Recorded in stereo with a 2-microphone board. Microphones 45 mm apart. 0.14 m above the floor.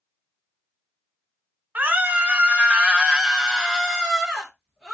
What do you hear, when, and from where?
1.8 s a scream: 35° right (ahead or behind), 1.2 m; by 5.0 s centre (ahead or behind), 2 m